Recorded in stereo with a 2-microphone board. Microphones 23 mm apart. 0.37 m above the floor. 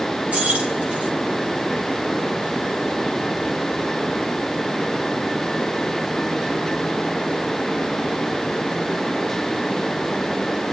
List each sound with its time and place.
0.3 s keys jangling: 80° right, 7 m